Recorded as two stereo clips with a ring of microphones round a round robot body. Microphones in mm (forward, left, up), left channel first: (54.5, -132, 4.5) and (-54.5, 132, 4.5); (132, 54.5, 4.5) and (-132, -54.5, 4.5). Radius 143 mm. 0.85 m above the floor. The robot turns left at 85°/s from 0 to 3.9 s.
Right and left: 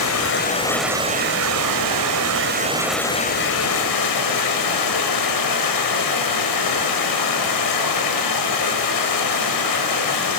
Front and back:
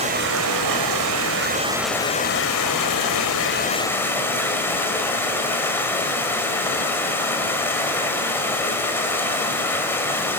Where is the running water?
90° right, 4.5 m; by 10.4 s 60° right, 4.5 m.